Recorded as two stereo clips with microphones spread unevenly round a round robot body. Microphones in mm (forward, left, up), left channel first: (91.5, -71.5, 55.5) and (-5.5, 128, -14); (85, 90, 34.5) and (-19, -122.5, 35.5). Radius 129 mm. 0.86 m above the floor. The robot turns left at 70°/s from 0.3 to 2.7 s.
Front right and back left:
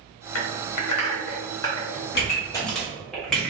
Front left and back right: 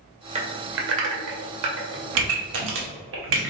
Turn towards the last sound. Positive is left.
turn(degrees=-155)